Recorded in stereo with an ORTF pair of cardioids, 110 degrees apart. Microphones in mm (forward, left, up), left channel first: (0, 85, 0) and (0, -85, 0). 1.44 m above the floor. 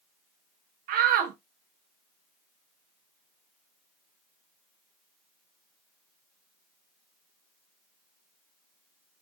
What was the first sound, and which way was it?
A shout, 65° right.